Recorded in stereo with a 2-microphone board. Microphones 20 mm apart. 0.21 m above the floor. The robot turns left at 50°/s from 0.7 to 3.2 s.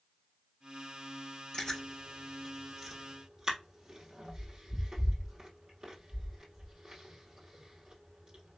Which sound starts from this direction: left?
Chewing, at 1.5 s.